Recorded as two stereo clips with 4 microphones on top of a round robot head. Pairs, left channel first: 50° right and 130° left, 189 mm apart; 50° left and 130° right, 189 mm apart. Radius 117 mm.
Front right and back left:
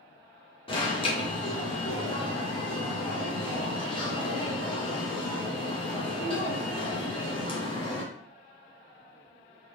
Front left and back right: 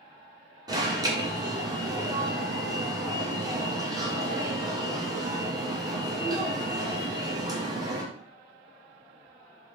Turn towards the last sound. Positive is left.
turn(degrees=-80)